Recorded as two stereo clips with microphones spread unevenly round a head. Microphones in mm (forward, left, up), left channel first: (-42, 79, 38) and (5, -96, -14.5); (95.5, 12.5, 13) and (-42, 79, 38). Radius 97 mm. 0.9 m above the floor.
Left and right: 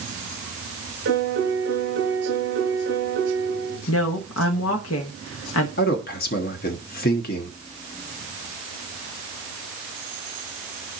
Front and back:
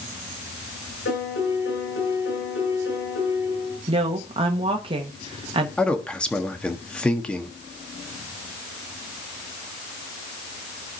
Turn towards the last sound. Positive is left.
turn(degrees=55)